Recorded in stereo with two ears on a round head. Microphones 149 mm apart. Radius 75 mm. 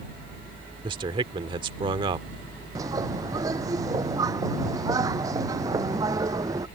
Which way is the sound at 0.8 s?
30° right (ahead or behind).